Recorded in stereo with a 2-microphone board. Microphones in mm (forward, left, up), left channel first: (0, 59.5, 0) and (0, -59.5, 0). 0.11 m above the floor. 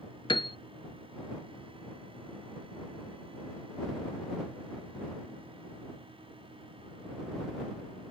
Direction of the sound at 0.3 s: 50° left (ahead or behind).